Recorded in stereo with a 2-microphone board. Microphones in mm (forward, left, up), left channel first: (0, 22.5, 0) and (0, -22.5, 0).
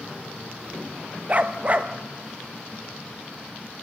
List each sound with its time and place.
1.3 s a dog barking: 35° right (ahead or behind), 1.0 m